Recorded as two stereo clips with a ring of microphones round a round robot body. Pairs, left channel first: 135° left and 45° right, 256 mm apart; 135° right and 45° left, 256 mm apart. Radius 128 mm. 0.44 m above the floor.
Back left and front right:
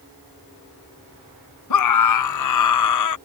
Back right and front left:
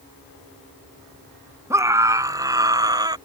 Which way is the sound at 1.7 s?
125° left.